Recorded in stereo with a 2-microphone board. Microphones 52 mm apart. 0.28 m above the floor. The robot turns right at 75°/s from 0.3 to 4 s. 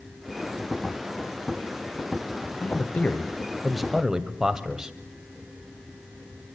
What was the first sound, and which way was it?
A man speaking, 95° left.